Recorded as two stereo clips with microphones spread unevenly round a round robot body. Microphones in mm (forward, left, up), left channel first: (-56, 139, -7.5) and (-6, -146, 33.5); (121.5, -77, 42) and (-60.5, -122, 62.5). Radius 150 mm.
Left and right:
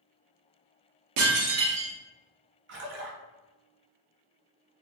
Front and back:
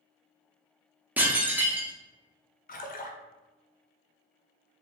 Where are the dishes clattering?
80° right, 0.8 m.